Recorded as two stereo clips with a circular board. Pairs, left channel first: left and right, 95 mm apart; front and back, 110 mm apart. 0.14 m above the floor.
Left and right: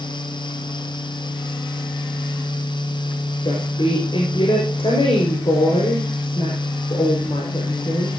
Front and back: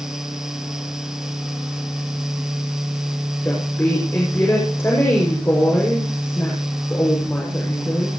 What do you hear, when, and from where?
3.4 s a woman speaking: 70° left, 6 m